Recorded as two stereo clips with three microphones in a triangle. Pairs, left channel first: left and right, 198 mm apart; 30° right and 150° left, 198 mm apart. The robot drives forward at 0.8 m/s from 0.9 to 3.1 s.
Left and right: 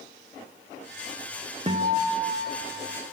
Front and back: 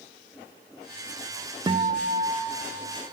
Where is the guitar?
140° right, 0.5 m; by 3.1 s 170° right, 1.6 m.